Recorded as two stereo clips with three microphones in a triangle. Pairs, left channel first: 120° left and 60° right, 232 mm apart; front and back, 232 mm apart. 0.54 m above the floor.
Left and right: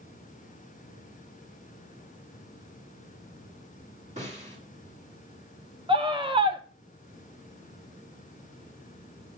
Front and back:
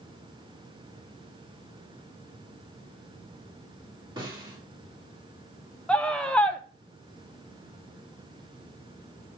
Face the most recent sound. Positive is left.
turn(degrees=-80)